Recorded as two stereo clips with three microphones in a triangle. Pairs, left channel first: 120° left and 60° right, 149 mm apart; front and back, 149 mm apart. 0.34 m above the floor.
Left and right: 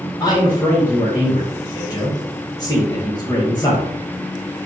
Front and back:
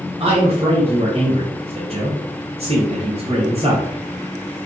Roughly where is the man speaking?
Behind.